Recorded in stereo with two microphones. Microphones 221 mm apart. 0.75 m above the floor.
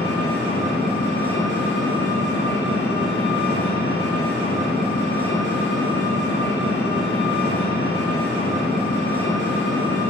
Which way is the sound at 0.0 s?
55° left (ahead or behind).